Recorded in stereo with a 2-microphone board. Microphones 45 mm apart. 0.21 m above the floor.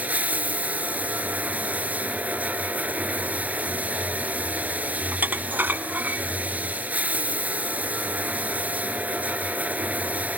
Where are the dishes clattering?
50° right (ahead or behind), 1.0 m.